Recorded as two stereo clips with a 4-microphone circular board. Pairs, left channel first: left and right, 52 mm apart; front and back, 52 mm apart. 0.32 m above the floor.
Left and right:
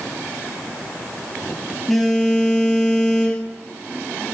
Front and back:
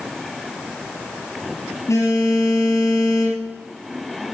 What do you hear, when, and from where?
1.9 s a phone buzzing: 5° left, 4 m